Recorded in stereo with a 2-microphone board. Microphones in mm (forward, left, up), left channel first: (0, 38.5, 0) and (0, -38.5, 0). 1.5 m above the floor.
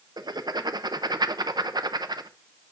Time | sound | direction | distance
0.2 | writing | 60° right (ahead or behind) | 0.7 m